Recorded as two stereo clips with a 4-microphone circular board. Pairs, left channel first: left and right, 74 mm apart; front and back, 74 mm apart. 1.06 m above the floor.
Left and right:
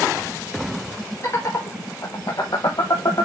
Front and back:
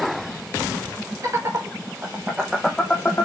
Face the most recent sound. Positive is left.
turn(degrees=50)